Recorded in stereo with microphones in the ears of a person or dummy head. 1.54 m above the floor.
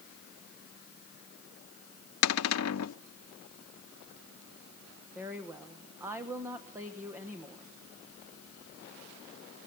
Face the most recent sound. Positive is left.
turn(degrees=-5)  # may be behind; listen again after turning